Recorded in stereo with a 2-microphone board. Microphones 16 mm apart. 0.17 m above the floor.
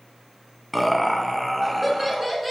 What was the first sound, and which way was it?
Laughter, 5° right (ahead or behind).